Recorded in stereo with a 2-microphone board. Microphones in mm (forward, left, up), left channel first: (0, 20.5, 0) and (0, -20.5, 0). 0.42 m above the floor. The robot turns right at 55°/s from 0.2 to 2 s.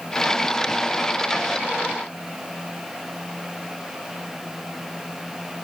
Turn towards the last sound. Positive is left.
No sound to turn to.